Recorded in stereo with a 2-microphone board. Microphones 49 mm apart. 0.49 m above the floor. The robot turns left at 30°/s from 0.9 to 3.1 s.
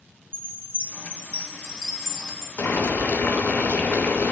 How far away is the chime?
About 1.0 m.